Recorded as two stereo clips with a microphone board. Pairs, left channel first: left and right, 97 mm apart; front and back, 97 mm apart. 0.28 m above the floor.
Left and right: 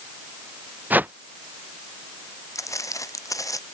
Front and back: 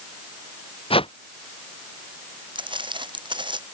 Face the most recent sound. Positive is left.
turn(degrees=145)